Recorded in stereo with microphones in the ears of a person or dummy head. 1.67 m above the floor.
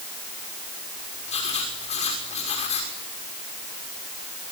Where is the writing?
45° left (ahead or behind), 6 m.